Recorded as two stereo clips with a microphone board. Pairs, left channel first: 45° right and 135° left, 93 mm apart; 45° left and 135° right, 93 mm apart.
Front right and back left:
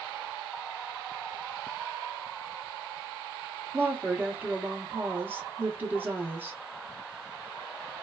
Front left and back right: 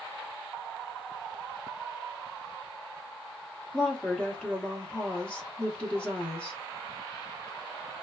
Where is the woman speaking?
105° left, 0.9 m.